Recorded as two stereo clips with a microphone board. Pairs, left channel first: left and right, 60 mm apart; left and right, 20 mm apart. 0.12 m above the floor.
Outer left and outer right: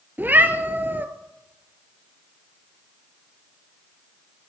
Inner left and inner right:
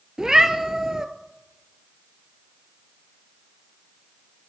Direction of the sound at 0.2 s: 35° right (ahead or behind).